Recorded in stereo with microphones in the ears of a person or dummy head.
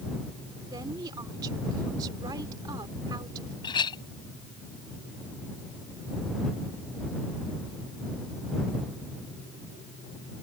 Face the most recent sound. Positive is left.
turn(degrees=30)  # may be behind; listen again after turning